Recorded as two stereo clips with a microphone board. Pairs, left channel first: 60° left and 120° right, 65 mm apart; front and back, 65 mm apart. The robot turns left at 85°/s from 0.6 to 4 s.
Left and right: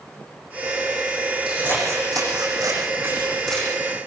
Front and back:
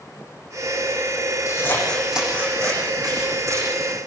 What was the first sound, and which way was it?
Scissors, 40° right.